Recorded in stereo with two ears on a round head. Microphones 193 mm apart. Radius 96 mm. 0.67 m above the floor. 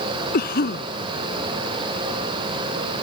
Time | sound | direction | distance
0.3 | a cough | 45° left (ahead or behind) | ?